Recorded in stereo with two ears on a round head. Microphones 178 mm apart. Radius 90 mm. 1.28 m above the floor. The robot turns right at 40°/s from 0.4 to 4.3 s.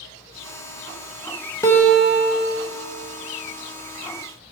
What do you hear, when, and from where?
1.6 s a guitar: 165° left, 1.0 m; by 2.7 s 155° right, 1.0 m